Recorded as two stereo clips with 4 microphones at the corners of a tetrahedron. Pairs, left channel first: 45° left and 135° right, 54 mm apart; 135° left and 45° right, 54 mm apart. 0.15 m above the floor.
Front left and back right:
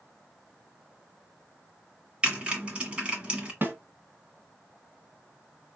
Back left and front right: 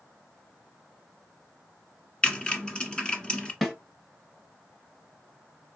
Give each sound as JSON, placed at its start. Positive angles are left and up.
{"t": 2.2, "sound": "typing on a keyboard", "azimuth_deg": 180, "distance_m": 1.3}
{"t": 3.6, "sound": "a snare drum", "azimuth_deg": -145, "distance_m": 1.6}